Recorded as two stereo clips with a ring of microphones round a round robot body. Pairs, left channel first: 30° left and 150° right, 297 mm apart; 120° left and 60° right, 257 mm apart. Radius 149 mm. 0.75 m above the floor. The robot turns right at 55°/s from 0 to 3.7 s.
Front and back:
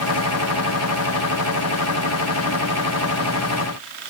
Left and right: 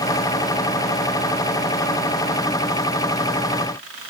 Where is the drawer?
I don't hear a drawer.